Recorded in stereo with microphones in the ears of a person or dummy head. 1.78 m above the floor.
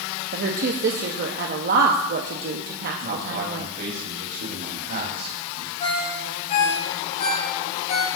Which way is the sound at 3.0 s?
40° right (ahead or behind).